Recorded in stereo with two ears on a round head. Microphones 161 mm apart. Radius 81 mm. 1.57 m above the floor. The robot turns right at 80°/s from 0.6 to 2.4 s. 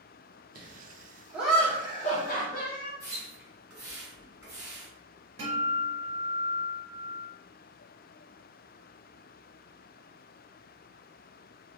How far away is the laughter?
About 0.6 m.